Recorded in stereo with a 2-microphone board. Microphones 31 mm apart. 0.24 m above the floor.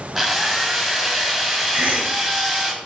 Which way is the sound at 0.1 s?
5° right (ahead or behind).